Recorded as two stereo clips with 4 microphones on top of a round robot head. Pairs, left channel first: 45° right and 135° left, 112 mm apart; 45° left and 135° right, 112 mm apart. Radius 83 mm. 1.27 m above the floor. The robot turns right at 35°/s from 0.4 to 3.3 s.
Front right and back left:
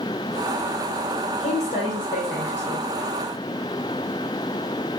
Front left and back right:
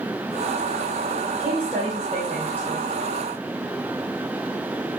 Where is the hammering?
No hammering in this recording.